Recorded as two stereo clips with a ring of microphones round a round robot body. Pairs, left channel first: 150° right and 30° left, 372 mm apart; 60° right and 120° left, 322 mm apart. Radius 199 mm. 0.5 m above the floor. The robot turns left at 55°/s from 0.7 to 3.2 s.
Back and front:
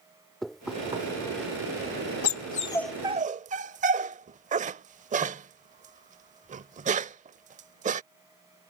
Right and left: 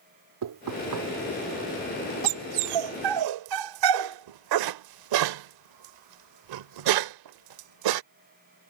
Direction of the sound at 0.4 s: 120° left.